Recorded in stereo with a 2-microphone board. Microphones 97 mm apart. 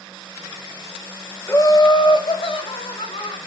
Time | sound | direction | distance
1.5 | laughter | 25° left (ahead or behind) | 0.9 m